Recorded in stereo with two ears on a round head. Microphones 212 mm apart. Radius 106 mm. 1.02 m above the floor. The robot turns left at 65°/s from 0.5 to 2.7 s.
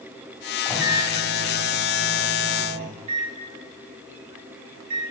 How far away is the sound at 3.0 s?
About 0.7 m.